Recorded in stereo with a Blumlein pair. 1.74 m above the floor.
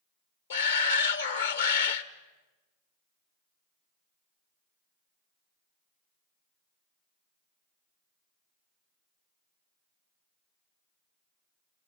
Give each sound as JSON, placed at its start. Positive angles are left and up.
{"t": 0.5, "sound": "a shout", "azimuth_deg": 70, "distance_m": 1.5}